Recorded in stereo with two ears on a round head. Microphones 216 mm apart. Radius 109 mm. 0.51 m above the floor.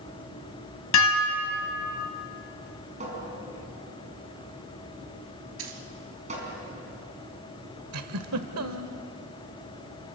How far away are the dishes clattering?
About 2.5 m.